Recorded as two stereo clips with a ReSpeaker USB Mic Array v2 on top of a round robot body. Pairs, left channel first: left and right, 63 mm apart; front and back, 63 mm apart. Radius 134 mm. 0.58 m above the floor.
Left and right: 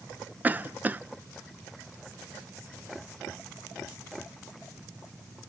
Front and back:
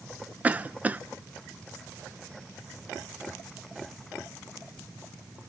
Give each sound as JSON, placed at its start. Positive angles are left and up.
{"t": 0.4, "sound": "a cough", "azimuth_deg": -130, "distance_m": 0.6}